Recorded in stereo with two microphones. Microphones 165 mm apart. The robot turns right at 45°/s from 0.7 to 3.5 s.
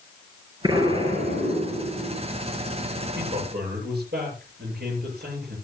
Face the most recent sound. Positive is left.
turn(degrees=-75)  # may be behind; listen again after turning